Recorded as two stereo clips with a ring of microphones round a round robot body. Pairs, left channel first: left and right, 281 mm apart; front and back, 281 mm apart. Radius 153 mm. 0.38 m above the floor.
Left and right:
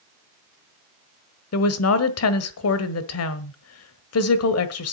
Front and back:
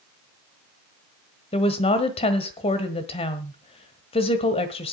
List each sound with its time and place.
1.5 s a woman speaking: 70° left, 1.5 m